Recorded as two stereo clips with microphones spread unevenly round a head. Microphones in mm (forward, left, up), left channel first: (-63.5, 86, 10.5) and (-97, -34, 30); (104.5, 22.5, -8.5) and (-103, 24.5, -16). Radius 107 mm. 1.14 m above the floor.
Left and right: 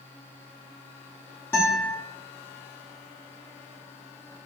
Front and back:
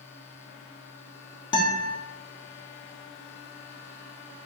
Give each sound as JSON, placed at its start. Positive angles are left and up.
{"t": 1.5, "sound": "a guitar", "azimuth_deg": -5, "distance_m": 0.6}